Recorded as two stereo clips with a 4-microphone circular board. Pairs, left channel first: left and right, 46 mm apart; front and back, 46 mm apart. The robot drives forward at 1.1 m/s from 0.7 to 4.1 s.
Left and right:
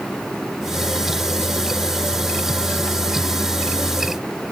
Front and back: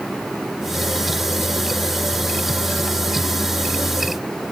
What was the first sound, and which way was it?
Only background noise.